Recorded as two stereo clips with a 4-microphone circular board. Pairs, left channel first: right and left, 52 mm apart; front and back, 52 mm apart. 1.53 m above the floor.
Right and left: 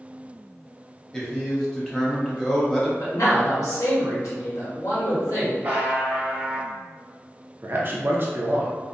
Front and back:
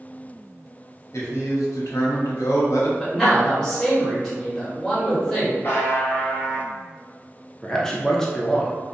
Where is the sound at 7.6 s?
75° left, 0.6 m.